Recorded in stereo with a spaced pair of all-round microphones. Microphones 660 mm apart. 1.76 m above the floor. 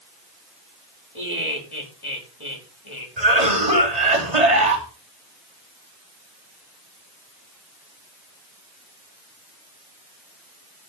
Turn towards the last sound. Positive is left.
turn(degrees=-65)  # may be behind; listen again after turning